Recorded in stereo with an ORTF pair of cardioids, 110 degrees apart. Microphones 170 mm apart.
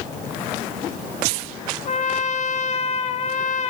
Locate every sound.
1.9 s a trumpet: 45° left, 1.3 m